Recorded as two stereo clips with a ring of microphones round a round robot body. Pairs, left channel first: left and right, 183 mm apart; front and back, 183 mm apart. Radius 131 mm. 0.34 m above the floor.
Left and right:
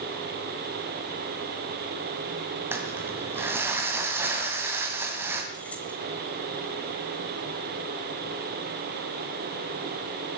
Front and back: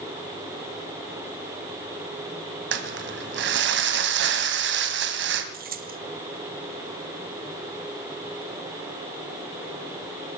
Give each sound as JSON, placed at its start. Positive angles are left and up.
{"t": 2.7, "sound": "crumpling", "azimuth_deg": -170, "distance_m": 1.8}
{"t": 5.5, "sound": "keys jangling", "azimuth_deg": 175, "distance_m": 1.3}